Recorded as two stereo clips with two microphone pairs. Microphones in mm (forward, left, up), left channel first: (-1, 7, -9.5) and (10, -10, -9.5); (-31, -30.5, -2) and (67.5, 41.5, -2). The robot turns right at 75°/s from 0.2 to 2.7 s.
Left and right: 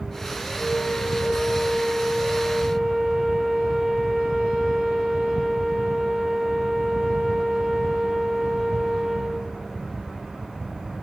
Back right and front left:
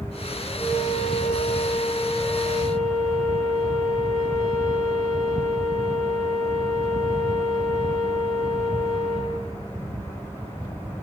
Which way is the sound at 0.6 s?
145° left.